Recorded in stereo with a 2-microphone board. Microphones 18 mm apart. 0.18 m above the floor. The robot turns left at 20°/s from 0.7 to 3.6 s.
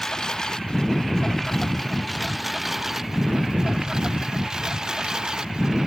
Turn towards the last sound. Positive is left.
turn(degrees=-35)  # may be behind; listen again after turning